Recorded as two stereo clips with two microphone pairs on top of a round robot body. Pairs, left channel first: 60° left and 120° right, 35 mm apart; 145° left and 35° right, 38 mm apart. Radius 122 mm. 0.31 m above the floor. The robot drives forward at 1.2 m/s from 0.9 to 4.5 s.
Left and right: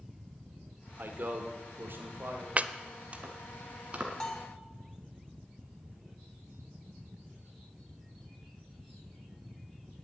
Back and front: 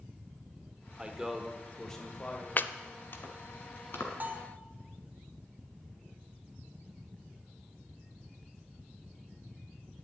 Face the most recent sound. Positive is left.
turn(degrees=10)